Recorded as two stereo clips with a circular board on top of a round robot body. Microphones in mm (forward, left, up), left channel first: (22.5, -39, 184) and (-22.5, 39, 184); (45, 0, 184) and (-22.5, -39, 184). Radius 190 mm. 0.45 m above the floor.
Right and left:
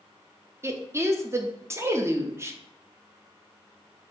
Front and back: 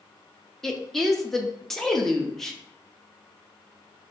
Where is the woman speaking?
110° left, 0.9 m.